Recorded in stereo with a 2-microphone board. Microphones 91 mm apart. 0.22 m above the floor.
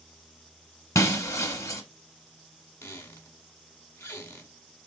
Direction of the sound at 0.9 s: 35° left (ahead or behind).